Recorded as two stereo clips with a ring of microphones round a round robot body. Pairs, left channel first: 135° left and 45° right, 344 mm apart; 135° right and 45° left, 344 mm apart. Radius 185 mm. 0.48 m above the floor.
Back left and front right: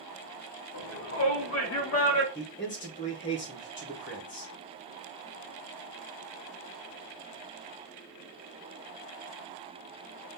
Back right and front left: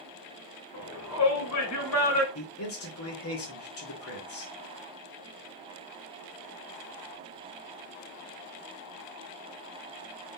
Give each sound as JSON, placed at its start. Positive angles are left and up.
{"t": 0.7, "sound": "a shout", "azimuth_deg": -175, "distance_m": 1.5}
{"t": 2.4, "sound": "a man speaking", "azimuth_deg": -175, "distance_m": 2.5}